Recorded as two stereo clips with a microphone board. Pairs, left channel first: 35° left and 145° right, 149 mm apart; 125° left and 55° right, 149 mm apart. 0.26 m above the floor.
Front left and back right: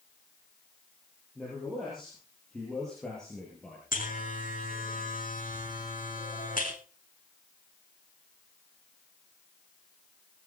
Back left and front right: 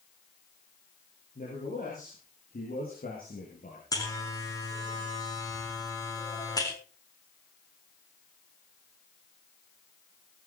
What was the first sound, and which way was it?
A man speaking, 125° left.